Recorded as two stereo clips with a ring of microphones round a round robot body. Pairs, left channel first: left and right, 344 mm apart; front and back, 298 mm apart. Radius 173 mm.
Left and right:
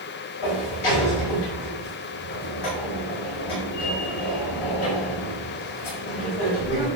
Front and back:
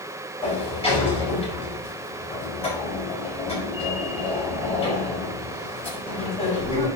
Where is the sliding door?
70° left, 5.5 m.